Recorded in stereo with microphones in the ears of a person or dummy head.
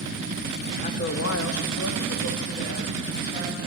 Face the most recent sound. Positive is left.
turn(degrees=45)  # may be behind; listen again after turning